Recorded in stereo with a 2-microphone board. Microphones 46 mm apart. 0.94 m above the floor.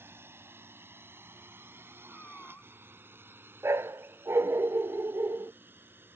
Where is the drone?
60° right (ahead or behind); by 6.2 s 55° right (ahead or behind).